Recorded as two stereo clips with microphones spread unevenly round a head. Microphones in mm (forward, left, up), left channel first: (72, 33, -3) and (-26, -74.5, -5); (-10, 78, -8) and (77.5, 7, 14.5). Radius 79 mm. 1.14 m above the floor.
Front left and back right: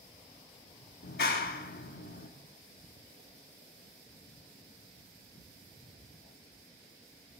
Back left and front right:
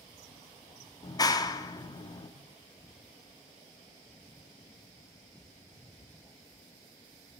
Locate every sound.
1.0 s a clap: 85° left, 1.4 m